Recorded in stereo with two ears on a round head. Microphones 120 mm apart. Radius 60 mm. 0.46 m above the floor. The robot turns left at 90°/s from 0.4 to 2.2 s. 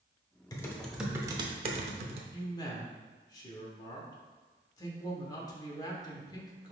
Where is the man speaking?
30° left (ahead or behind), 0.9 m.